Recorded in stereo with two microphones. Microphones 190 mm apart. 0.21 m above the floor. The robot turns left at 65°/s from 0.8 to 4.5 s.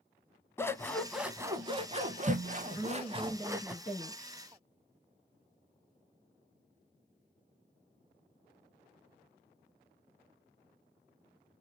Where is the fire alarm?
No fire alarm in this recording.